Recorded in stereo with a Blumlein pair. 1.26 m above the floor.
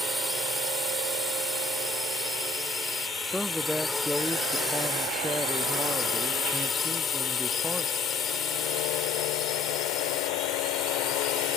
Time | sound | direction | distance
0.0 | a drone | 5° right | ?
3.2 | a man speaking | straight ahead | ?